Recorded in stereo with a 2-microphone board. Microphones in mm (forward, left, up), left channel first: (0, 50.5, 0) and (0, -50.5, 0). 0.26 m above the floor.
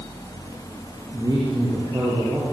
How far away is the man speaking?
About 5.5 m.